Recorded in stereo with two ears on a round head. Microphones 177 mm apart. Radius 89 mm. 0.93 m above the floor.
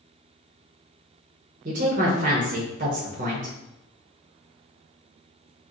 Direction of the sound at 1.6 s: 40° right (ahead or behind).